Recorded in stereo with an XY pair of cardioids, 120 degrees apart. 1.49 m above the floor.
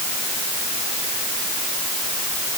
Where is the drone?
I don't hear a drone.